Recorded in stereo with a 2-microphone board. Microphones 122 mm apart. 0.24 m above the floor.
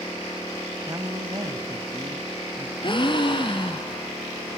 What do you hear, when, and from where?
0.9 s a woman speaking: 30° right (ahead or behind), 1.5 m
2.8 s a gasp: 45° left (ahead or behind), 1.5 m